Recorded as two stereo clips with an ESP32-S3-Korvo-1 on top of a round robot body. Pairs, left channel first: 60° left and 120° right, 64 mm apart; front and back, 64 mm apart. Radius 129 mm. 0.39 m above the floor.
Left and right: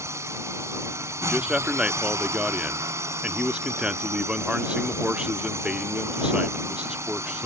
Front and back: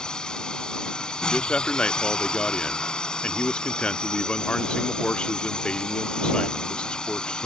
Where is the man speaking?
60° right.